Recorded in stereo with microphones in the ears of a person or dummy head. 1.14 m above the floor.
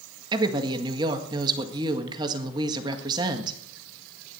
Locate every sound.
0.3 s a woman speaking: 20° right (ahead or behind), 1.7 m